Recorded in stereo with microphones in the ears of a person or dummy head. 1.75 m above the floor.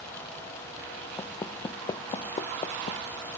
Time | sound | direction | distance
1.2 | footsteps | 20° left (ahead or behind) | ?